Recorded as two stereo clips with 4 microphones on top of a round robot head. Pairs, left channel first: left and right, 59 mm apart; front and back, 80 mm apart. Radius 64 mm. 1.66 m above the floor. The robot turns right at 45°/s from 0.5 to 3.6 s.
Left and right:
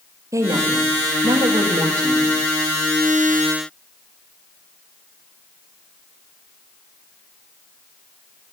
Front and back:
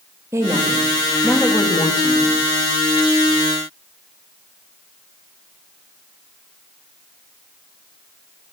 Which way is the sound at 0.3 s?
115° right.